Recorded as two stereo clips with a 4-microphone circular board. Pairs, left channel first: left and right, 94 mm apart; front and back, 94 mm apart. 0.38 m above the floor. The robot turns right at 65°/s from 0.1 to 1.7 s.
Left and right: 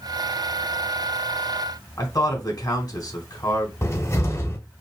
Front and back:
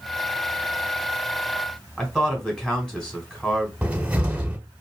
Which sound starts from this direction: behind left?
A cupboard door, at 3.8 s.